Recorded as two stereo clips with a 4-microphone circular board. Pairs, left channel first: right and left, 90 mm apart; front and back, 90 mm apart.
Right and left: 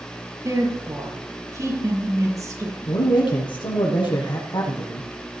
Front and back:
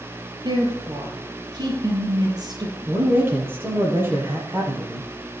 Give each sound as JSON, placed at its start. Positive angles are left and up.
{"t": 0.4, "sound": "a woman speaking", "azimuth_deg": 140, "distance_m": 6.0}
{"t": 2.9, "sound": "a man speaking", "azimuth_deg": -115, "distance_m": 6.0}